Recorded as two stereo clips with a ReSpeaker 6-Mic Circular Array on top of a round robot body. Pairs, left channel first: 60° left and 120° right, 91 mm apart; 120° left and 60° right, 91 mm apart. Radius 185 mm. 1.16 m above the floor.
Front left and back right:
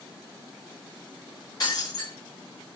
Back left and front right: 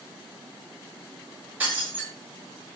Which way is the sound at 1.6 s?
10° left.